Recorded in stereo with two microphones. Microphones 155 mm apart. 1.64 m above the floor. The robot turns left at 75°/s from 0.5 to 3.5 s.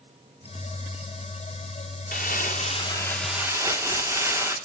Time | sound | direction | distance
2.1 | crumpling | 90° left | 2.5 m